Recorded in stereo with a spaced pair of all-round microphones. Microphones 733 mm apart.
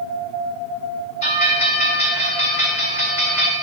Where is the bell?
40° left (ahead or behind), 1.3 m.